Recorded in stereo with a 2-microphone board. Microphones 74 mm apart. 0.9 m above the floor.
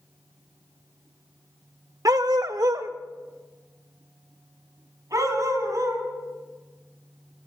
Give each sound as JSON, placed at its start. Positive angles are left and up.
{"t": 2.0, "sound": "a dog barking", "side_deg": -50, "distance_m": 0.7}